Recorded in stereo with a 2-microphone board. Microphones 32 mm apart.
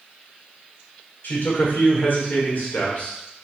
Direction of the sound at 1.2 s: 75° left (ahead or behind).